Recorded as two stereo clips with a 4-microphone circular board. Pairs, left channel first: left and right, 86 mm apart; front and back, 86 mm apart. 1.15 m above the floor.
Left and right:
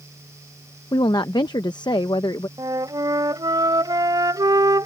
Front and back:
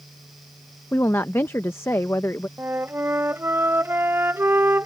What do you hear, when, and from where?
0.9 s a woman speaking: 60° left
2.6 s a flute: 120° right